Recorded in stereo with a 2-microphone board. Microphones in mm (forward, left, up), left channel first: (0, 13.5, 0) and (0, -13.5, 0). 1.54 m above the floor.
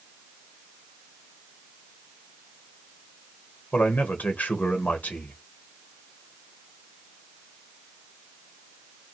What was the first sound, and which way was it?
A man speaking, 70° left (ahead or behind).